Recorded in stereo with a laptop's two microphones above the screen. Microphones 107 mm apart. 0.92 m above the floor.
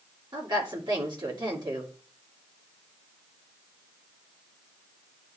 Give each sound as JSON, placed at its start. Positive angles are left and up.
{"t": 0.3, "sound": "a woman speaking", "side_deg": -50, "distance_m": 2.5}